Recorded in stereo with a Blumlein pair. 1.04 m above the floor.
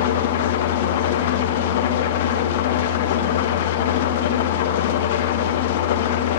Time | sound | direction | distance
0.0 | an engine running | 55° left | 0.8 m